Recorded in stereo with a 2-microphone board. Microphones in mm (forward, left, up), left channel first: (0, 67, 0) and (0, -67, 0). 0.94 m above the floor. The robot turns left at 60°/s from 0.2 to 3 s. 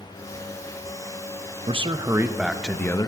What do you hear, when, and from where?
1.7 s a man speaking: 125° right, 0.8 m; by 3.1 s 155° left, 0.8 m